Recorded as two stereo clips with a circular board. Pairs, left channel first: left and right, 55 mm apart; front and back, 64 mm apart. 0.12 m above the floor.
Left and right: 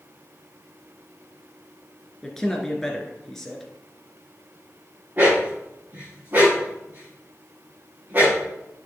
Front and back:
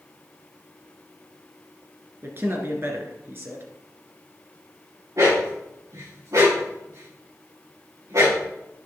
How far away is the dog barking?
About 5.5 m.